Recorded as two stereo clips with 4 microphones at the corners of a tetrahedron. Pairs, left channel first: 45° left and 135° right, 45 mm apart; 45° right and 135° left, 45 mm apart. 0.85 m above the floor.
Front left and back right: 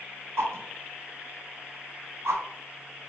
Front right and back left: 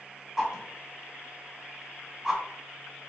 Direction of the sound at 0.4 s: 150° right.